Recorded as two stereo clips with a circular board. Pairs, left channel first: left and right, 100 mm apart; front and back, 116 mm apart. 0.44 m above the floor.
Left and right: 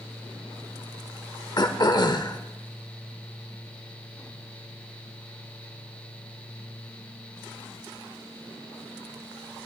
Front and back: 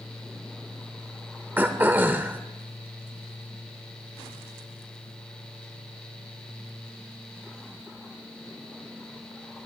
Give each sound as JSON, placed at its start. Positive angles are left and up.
{"t": 1.6, "sound": "throat clearing", "azimuth_deg": 110, "distance_m": 0.6}